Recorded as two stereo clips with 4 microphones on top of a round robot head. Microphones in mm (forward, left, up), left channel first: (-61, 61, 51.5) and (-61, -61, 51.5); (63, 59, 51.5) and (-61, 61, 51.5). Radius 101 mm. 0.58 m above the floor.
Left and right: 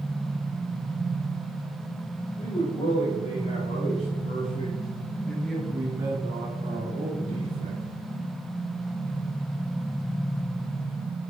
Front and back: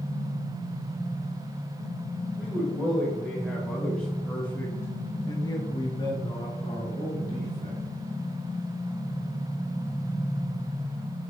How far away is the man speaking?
About 2.5 m.